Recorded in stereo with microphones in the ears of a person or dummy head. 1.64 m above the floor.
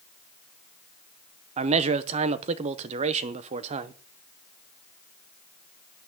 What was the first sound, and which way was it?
A man speaking, 40° right (ahead or behind).